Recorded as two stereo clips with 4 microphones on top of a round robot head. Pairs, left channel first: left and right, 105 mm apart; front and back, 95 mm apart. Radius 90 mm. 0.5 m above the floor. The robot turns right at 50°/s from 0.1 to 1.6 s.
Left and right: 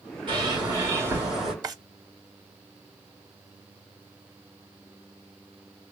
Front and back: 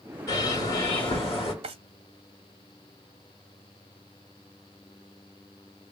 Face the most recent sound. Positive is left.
turn(degrees=-145)